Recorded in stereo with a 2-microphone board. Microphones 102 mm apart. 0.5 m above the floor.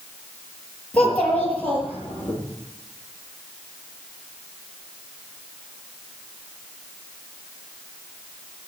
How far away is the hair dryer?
No hair dryer in this recording.